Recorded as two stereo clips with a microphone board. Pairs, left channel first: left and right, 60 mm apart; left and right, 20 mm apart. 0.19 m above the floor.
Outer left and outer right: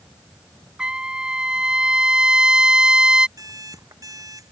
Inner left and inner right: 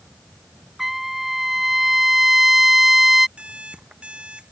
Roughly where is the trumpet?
Centre.